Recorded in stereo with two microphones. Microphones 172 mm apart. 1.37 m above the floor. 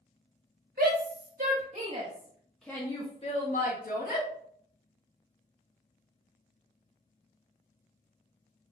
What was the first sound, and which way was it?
A shout, 65° right (ahead or behind).